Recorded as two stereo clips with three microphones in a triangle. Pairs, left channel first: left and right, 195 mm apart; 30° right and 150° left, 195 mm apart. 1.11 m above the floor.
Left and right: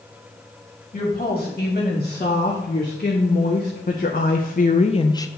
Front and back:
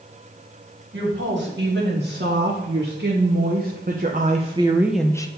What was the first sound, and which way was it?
A woman speaking, 135° left.